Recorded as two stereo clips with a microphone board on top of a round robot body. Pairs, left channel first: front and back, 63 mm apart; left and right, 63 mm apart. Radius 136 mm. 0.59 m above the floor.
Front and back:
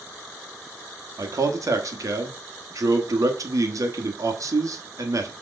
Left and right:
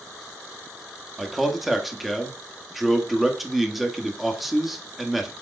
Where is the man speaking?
Straight behind, 1.6 m.